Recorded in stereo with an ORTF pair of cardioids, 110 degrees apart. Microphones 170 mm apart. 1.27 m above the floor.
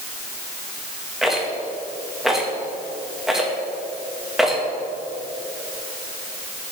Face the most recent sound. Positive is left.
turn(degrees=0)